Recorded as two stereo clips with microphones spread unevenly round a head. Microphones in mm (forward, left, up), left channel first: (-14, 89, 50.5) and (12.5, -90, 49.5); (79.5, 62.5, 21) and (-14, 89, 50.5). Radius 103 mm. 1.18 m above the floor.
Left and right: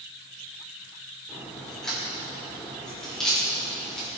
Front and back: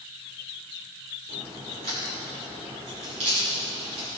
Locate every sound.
1.3 s a crack: 175° right, 5 m